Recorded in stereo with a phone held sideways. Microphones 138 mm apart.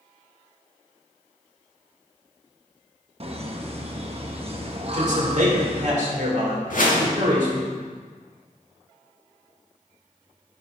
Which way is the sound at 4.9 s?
60° right (ahead or behind).